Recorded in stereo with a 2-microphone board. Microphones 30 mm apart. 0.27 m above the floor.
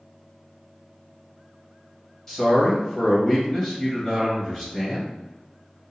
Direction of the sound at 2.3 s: 15° left (ahead or behind).